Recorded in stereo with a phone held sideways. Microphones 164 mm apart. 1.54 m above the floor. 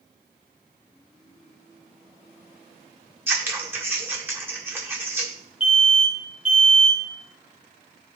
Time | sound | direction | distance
3.3 | scissors | 15° right (ahead or behind) | 1.4 m
5.6 | an alarm | 35° left (ahead or behind) | 2 m